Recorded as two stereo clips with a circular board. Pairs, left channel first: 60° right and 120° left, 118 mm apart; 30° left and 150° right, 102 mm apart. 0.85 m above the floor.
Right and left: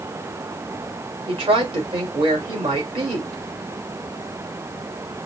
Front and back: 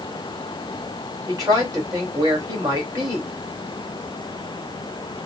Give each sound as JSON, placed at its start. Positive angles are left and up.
{"t": 1.3, "sound": "a woman speaking", "azimuth_deg": 155, "distance_m": 3.0}